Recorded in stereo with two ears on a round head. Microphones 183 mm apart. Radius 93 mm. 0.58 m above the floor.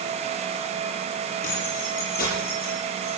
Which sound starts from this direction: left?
Keys jangling, at 1.4 s.